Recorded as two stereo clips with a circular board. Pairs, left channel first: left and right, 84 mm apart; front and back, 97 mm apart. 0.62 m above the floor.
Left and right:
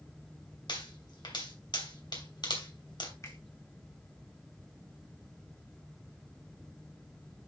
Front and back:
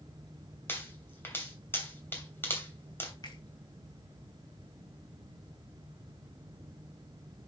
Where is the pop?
65° left, 2.5 m.